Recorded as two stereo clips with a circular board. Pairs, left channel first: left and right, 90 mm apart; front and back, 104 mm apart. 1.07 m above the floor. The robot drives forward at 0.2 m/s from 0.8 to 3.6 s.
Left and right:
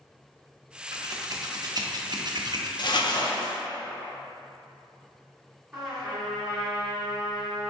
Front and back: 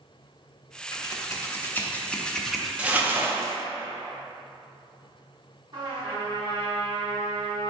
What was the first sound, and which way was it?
Scissors, 50° right.